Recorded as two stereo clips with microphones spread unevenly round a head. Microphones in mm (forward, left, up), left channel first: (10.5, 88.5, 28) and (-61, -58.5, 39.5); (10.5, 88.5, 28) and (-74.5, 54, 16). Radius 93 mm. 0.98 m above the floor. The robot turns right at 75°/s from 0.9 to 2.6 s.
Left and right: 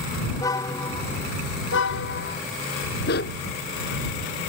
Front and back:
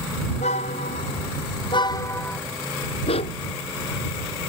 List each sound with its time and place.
0.3 s a car horn: 10° right; by 2.4 s 105° left
3.1 s a dog barking: 30° left